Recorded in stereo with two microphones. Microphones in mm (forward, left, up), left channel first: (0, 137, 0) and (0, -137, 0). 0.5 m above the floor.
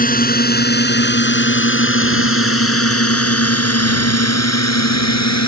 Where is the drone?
30° left (ahead or behind); by 5.5 s 75° left (ahead or behind).